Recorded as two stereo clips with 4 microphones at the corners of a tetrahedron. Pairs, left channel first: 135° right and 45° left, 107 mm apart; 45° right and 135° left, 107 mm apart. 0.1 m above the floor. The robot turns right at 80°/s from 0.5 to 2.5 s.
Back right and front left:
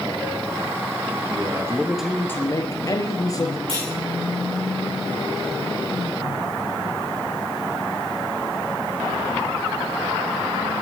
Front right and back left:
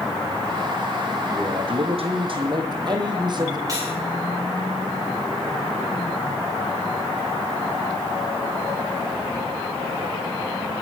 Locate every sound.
1.3 s a man speaking: 75° left, 2.5 m; by 3.6 s 170° left, 2.5 m
3.7 s cutlery clinking: 80° left, 7 m